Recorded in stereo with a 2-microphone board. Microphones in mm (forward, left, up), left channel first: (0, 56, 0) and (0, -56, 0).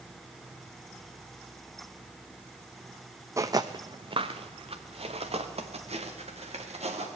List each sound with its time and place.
3.4 s footsteps: 25° right (ahead or behind), 0.7 m; by 7.1 s 70° right (ahead or behind), 3 m